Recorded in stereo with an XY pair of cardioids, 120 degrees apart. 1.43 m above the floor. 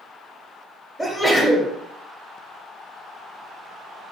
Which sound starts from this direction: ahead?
A sneeze, at 1.0 s.